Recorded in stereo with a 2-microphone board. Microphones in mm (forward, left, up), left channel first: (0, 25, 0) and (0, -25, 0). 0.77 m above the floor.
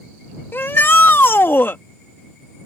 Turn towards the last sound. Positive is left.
turn(degrees=50)  # may be behind; listen again after turning